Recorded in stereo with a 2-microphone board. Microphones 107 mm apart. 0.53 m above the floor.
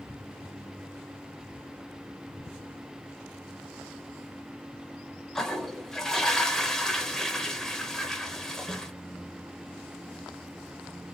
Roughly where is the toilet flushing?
Centre.